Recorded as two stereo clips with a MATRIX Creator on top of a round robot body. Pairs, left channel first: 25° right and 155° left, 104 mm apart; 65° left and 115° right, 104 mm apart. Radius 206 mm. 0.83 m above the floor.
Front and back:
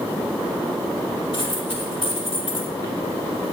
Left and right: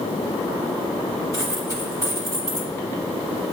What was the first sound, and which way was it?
A dropped coin, 10° left.